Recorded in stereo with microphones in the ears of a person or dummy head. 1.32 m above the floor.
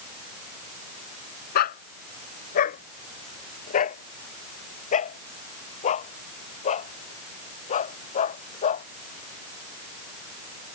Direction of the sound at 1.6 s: 50° left (ahead or behind).